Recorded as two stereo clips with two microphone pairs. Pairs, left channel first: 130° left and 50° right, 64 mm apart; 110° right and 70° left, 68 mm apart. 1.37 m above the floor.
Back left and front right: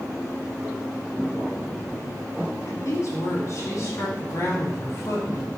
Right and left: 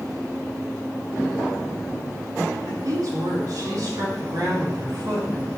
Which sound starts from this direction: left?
A woman speaking, at 2.7 s.